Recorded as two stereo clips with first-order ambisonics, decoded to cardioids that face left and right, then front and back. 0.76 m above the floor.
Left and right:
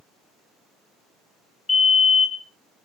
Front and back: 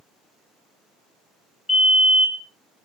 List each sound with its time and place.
1.7 s a fire alarm: 70° left, 1.5 m